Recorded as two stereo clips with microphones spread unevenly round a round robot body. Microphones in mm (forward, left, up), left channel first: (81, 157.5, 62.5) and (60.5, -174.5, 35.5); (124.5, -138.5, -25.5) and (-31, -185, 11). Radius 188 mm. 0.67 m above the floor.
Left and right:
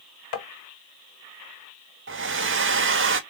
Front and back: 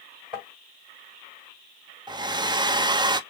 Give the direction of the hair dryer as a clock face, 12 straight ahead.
3 o'clock.